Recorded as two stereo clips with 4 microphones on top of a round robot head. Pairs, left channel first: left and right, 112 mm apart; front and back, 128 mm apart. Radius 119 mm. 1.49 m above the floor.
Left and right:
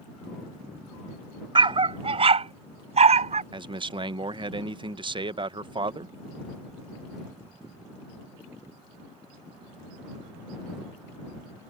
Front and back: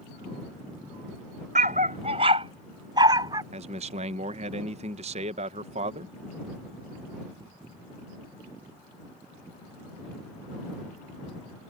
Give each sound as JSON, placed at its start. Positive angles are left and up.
{"t": 1.6, "sound": "a dog barking", "azimuth_deg": -130}
{"t": 3.5, "sound": "a man speaking", "azimuth_deg": -135}